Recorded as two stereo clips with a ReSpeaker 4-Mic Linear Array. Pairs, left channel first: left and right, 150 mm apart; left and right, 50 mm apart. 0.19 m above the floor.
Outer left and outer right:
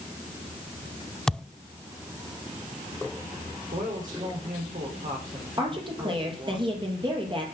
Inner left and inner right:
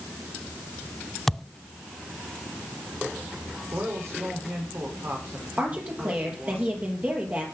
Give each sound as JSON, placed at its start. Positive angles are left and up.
{"t": 1.3, "sound": "a thud", "side_deg": 5, "distance_m": 0.5}
{"t": 3.7, "sound": "a man speaking", "side_deg": -55, "distance_m": 9.5}
{"t": 5.6, "sound": "a woman speaking", "side_deg": -30, "distance_m": 5.5}